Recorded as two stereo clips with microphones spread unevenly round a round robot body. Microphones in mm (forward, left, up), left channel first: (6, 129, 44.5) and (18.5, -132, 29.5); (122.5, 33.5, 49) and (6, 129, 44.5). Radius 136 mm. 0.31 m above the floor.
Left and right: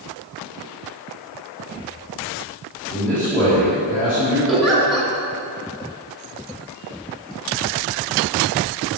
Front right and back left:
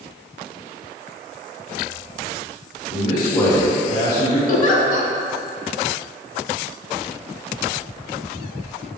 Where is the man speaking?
5° left, 1.9 m; by 4.4 s 30° left, 2.5 m.